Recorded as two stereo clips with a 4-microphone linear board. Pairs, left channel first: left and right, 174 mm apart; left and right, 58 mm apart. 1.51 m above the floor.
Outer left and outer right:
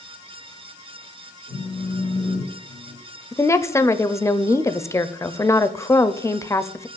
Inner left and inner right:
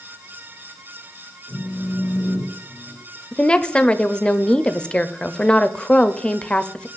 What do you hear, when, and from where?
1.5 s a phone buzzing: 40° right (ahead or behind), 4.5 m
3.3 s a woman speaking: 15° left (ahead or behind), 0.5 m